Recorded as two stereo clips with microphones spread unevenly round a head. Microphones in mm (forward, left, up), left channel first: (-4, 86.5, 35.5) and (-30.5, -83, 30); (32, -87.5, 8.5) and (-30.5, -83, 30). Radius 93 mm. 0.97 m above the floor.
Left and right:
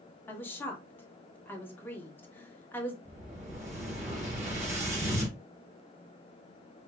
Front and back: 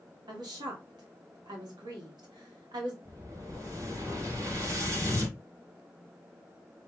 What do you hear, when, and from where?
0.3 s a woman speaking: 160° left, 1.6 m
3.0 s an explosion: 145° right, 2.5 m